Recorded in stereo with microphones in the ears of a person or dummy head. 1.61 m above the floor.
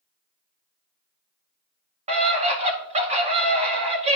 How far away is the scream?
About 1.8 m.